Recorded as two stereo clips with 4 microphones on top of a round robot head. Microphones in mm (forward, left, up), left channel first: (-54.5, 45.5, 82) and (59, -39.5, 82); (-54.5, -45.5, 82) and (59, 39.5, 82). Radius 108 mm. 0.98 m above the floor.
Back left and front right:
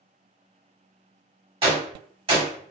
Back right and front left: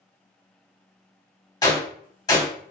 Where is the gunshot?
80° right, 1.2 m.